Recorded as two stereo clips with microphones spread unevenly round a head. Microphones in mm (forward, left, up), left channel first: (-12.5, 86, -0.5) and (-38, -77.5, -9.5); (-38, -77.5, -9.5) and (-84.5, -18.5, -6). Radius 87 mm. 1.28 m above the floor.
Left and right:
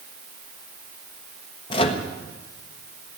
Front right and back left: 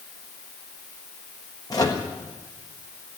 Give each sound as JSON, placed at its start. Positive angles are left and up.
{"t": 1.7, "sound": "a microwave", "azimuth_deg": 20, "distance_m": 1.3}